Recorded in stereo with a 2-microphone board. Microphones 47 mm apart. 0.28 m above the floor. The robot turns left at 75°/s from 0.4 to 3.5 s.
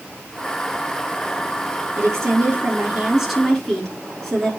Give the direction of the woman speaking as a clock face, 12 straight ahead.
3 o'clock.